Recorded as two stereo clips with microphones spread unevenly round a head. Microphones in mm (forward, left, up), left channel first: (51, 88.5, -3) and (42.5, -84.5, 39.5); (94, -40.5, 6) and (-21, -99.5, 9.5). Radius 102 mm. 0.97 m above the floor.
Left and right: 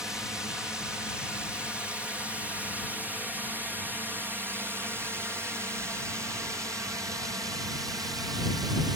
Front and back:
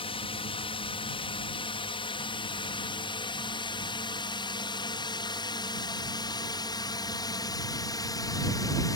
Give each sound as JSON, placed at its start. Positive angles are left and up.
{"t": 0.0, "sound": "a drone", "azimuth_deg": 5}